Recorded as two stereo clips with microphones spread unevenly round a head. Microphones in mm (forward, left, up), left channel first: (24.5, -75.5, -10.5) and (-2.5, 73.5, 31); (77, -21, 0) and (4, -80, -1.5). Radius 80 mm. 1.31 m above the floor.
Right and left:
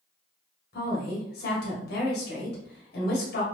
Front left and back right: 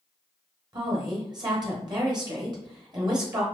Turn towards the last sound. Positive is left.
turn(degrees=-100)